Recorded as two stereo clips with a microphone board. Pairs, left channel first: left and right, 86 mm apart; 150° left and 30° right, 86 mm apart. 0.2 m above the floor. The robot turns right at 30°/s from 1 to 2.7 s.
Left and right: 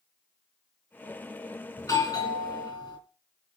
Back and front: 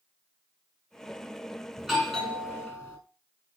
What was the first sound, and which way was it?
A doorbell, 55° left.